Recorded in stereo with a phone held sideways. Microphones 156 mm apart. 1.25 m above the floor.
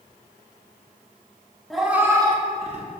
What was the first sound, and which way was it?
A cat meowing, centre (ahead or behind).